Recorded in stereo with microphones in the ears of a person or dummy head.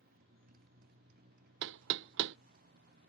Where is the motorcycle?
50° right (ahead or behind); by 3.1 s 55° right (ahead or behind).